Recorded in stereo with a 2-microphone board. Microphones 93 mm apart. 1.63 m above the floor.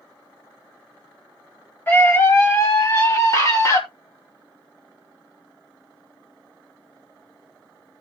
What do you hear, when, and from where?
1.9 s a scream: 25° left (ahead or behind), 2.5 m; by 3.8 s 40° left (ahead or behind), 3 m